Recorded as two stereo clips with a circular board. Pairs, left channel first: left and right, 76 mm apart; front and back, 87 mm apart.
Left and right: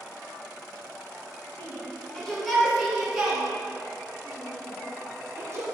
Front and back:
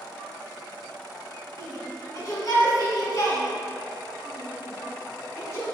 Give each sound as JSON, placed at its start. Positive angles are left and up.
{"t": 1.6, "sound": "a shout", "azimuth_deg": 35, "distance_m": 2.5}